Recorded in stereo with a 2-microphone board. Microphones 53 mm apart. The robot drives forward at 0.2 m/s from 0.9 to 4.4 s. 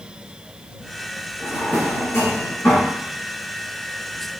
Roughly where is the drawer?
Left.